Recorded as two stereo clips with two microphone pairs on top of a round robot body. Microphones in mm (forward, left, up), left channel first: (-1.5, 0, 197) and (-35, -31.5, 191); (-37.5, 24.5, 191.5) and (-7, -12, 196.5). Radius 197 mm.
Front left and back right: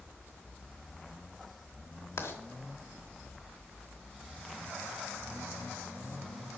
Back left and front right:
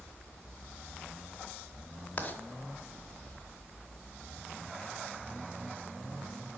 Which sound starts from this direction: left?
Writing, at 2.2 s.